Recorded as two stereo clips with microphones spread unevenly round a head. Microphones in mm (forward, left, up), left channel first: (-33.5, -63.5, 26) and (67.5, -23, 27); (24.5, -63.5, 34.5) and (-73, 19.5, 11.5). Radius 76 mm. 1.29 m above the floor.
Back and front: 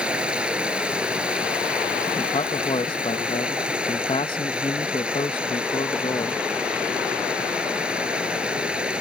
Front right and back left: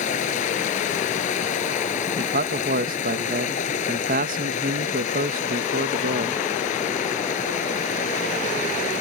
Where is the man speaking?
145° left.